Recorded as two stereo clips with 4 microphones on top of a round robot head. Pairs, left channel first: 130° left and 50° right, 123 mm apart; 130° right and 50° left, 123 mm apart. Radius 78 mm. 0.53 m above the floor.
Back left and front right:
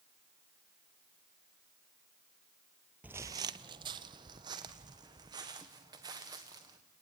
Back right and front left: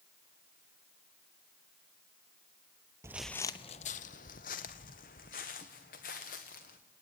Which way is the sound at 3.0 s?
15° left.